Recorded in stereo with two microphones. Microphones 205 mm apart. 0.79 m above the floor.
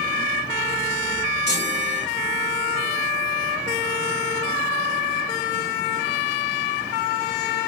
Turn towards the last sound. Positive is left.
turn(degrees=55)  # may be behind; listen again after turning